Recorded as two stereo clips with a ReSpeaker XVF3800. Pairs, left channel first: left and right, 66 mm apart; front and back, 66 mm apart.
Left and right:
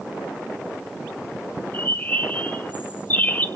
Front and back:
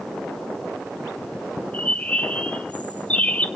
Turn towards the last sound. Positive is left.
turn(degrees=50)